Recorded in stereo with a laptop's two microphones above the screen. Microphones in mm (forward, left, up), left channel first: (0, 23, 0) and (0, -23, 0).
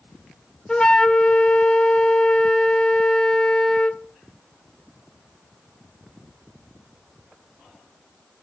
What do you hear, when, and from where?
0.7 s a flute: 20° left (ahead or behind), 0.6 m